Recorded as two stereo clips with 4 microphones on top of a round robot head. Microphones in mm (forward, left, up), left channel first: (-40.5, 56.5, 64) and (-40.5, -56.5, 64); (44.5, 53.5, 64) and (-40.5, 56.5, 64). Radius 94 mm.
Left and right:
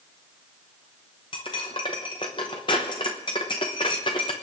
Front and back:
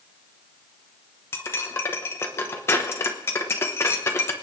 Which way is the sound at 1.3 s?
40° left.